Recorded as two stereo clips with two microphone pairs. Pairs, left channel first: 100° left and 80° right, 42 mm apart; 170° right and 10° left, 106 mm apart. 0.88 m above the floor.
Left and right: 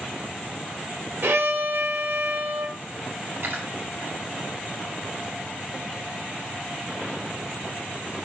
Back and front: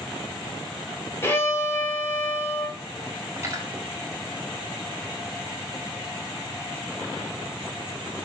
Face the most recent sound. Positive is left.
turn(degrees=-50)